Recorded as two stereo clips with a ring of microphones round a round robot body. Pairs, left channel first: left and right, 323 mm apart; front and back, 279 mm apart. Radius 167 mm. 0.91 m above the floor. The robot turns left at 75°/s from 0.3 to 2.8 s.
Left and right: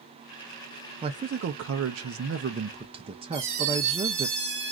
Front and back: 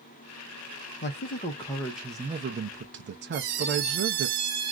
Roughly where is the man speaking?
Ahead.